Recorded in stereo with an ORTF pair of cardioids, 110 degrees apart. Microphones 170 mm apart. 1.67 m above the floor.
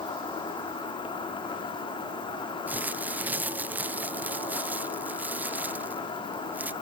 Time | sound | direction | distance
0.0 | an insect | 30° left | 5.5 m
2.7 | crumpling | 10° right | 0.9 m